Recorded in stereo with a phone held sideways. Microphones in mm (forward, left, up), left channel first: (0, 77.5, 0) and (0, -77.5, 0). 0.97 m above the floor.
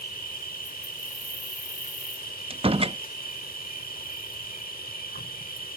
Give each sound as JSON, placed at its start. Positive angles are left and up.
{"t": 0.0, "sound": "an insect", "side_deg": 70}
{"t": 2.5, "sound": "a door slam", "side_deg": -40}